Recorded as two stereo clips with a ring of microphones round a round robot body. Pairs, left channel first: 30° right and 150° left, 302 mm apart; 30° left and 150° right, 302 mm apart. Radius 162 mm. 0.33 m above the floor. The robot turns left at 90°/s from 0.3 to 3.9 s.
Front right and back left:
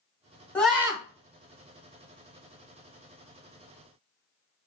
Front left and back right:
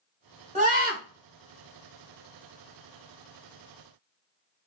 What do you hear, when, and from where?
0.6 s a scream: 110° right, 1.2 m; by 1.0 s 150° right, 1.2 m